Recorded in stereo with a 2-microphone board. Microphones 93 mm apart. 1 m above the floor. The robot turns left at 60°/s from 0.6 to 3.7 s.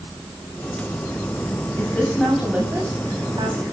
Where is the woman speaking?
30° left, 5.5 m; by 3.6 s 80° right, 5.5 m.